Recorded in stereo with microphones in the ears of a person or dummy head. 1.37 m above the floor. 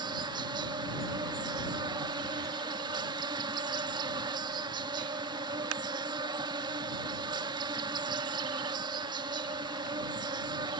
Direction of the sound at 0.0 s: 25° right (ahead or behind).